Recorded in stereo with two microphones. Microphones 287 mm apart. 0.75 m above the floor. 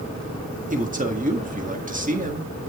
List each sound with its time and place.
0.7 s a man speaking: 30° right (ahead or behind), 1.6 m